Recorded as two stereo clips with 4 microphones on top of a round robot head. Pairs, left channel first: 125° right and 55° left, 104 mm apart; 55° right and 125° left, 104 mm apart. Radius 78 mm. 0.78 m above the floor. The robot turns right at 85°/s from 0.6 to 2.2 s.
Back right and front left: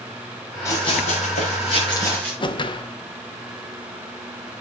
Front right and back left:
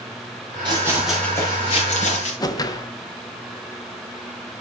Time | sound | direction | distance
0.7 | running footsteps | 170° left | 5.5 m
2.4 | a whoosh | 100° right | 1.3 m